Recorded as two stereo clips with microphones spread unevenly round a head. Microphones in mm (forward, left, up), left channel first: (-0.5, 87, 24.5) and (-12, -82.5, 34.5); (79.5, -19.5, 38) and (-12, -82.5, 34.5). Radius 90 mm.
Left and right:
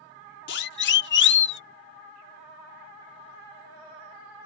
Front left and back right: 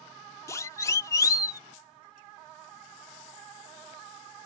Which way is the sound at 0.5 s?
105° left.